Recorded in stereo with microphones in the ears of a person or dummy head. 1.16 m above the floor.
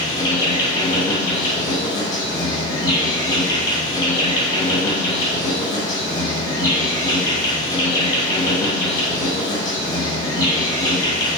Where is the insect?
20° left (ahead or behind), 0.8 m.